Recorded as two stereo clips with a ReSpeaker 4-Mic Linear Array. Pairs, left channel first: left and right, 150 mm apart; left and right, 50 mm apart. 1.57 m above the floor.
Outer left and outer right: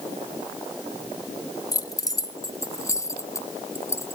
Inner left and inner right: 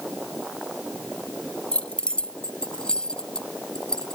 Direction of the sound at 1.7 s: 25° left (ahead or behind).